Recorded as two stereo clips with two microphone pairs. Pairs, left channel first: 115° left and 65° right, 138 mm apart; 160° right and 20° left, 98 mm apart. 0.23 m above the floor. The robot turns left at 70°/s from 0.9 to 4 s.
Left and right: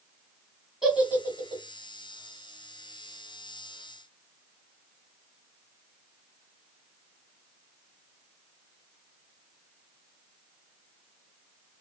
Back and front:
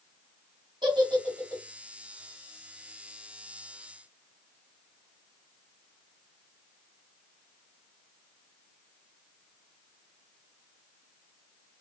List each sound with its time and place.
0.8 s a giggle: 15° left, 1.4 m; by 1.6 s 35° right, 1.4 m